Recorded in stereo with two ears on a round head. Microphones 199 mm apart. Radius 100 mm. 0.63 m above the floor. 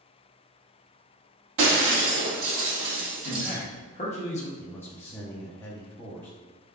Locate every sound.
1.6 s breaking glass: 60° right (ahead or behind), 1.5 m
3.2 s a man speaking: 30° left (ahead or behind), 0.9 m
4.6 s a man speaking: 10° left (ahead or behind), 0.6 m